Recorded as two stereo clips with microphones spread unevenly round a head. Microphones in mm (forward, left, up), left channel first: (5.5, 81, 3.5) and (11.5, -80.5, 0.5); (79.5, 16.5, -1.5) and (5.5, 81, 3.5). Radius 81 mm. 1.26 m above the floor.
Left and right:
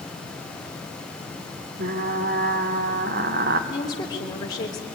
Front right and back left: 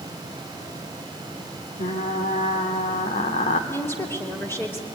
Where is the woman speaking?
25° left, 3 m.